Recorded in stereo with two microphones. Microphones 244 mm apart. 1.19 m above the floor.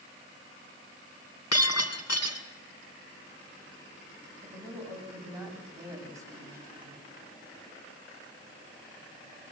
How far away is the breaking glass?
About 4.5 m.